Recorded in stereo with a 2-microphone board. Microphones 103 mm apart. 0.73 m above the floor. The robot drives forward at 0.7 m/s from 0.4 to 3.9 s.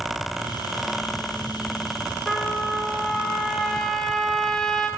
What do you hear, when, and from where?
2.3 s a trumpet: 5° left (ahead or behind), 2.5 m; by 4.9 s centre (ahead or behind), 3.5 m